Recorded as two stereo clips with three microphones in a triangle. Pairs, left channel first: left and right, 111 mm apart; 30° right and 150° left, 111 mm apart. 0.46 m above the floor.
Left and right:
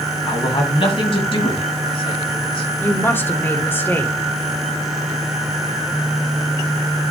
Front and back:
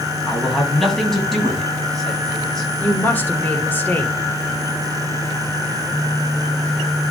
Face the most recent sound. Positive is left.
turn(degrees=30)